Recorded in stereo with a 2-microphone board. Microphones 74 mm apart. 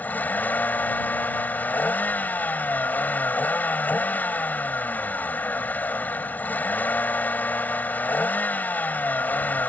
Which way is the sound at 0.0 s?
25° left (ahead or behind).